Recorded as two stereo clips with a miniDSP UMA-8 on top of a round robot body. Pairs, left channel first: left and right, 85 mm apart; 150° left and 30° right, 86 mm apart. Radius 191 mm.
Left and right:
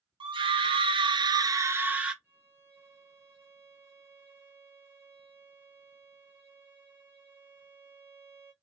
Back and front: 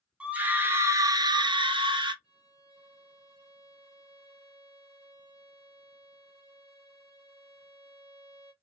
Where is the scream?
105° right, 1.1 m; by 2.1 s 10° right, 0.9 m.